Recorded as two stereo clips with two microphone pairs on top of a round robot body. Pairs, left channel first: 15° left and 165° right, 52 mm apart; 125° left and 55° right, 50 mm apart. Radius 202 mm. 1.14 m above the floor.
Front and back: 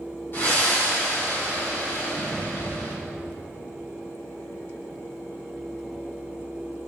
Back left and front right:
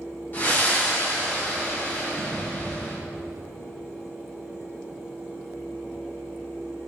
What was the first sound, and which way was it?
Breathing, 70° left.